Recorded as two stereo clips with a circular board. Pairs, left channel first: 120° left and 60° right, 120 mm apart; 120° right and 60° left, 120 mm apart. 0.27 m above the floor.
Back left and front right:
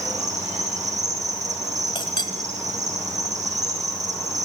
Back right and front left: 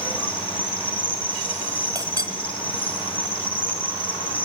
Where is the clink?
100° left, 1.3 m.